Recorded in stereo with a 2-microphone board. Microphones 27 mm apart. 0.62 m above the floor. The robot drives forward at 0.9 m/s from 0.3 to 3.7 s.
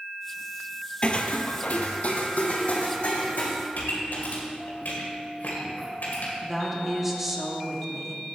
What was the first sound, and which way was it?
Footsteps, 35° left (ahead or behind).